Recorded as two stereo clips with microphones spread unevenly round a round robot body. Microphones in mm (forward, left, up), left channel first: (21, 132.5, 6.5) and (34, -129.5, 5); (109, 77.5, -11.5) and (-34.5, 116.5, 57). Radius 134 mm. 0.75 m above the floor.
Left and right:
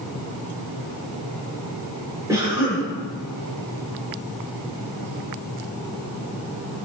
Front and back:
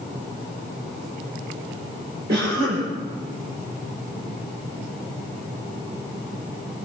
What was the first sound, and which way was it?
A cough, 165° right.